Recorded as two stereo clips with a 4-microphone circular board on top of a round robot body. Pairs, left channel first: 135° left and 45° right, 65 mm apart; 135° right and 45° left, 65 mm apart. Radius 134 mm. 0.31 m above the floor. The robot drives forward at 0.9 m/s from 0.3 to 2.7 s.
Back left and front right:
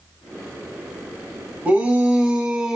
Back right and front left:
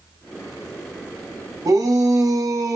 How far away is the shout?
About 3 m.